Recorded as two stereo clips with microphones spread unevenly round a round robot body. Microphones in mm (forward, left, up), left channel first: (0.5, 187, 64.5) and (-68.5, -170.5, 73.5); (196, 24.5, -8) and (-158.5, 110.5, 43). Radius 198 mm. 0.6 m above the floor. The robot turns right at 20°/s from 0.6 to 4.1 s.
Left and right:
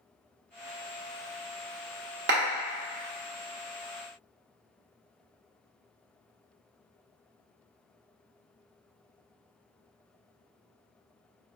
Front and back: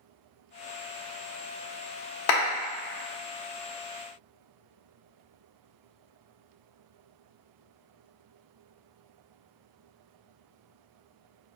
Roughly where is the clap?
Ahead right.